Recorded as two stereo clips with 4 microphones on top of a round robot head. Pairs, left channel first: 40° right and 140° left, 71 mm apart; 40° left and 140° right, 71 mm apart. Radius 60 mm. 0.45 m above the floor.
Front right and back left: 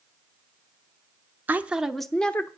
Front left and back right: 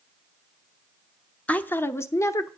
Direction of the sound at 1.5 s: 100° left.